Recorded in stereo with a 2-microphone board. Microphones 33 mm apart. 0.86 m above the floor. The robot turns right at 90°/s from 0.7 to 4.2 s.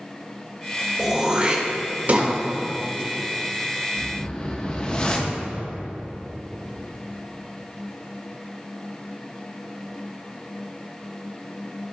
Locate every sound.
1.0 s throat clearing: 5° right (ahead or behind), 1.3 m; by 2.3 s 35° right (ahead or behind), 1.3 m
4.0 s a whoosh: 10° left (ahead or behind), 0.8 m; by 5.4 s 20° left (ahead or behind), 0.8 m